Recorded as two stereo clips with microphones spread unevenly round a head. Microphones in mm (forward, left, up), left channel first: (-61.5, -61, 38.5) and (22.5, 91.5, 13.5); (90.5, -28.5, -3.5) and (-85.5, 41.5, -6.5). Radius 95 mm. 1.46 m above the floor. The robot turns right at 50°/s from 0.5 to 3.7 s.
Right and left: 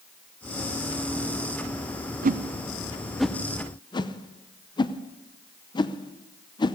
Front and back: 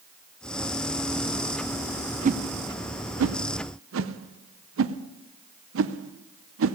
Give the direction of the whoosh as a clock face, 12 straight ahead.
9 o'clock.